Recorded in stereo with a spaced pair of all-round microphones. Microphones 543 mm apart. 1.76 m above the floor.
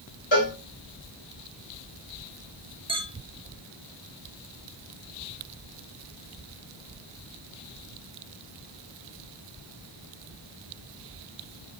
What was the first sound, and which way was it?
A cowbell, 55° left (ahead or behind).